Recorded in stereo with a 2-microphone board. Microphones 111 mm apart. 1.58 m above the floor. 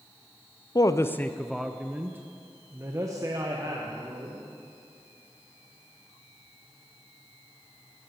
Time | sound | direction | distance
0.8 | a woman speaking | 35° left (ahead or behind) | 0.5 m